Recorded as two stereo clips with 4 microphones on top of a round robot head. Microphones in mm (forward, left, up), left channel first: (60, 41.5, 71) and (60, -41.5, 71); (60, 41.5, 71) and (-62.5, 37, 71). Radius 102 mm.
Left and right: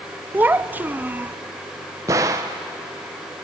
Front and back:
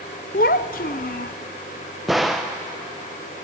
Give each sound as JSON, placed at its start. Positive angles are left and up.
{"t": 0.3, "sound": "a child speaking", "azimuth_deg": -25, "distance_m": 0.6}
{"t": 2.1, "sound": "a gunshot", "azimuth_deg": -90, "distance_m": 0.6}